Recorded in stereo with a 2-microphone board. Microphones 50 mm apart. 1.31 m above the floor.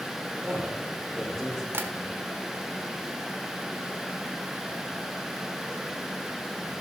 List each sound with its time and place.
0.4 s a man speaking: 25° right (ahead or behind), 3.5 m; by 1.6 s 5° right (ahead or behind), 4 m
1.7 s tapping: 55° right (ahead or behind), 1.5 m